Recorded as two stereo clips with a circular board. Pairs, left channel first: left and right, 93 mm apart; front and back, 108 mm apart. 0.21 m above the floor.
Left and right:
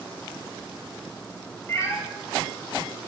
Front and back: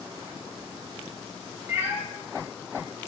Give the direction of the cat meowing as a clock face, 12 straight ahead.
8 o'clock.